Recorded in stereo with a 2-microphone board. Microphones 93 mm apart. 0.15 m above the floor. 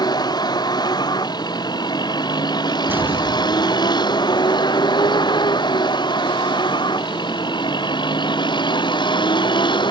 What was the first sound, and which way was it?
A vehicle, 50° left (ahead or behind).